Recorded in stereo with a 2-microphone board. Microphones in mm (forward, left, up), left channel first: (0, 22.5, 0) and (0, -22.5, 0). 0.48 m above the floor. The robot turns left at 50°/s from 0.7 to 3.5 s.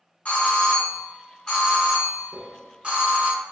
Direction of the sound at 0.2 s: 65° left.